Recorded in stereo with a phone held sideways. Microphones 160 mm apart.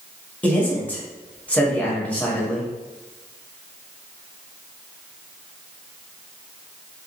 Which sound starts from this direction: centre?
A man speaking, at 0.4 s.